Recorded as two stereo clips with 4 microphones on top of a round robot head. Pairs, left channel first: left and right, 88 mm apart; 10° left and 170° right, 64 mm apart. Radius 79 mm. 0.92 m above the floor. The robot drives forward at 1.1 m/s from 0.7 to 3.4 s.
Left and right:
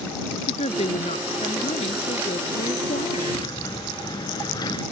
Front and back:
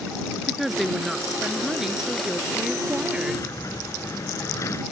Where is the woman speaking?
100° left; by 3.5 s 110° left.